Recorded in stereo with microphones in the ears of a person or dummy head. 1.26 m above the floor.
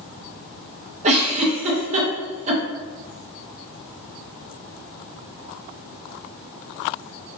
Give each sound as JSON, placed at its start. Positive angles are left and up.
{"t": 1.0, "sound": "a giggle", "side_deg": -35, "distance_m": 0.5}